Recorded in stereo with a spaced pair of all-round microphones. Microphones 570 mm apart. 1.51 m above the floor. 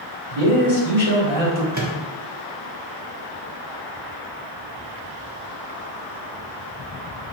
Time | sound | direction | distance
0.3 | a man speaking | 85° right | 1.7 m
1.7 | a microwave | 30° right (ahead or behind) | 0.9 m